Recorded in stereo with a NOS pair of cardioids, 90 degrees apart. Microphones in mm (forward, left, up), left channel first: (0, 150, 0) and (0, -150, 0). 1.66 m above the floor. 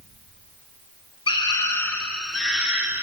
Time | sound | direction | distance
1.3 | a scream | 15° left | 3 m